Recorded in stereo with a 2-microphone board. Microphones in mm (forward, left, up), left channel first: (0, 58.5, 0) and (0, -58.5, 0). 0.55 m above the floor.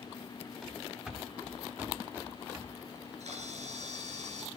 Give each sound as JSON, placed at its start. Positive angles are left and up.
{"t": 0.6, "sound": "running footsteps", "side_deg": 0, "distance_m": 3.5}
{"t": 3.0, "sound": "a camera shutter", "side_deg": -70, "distance_m": 4.0}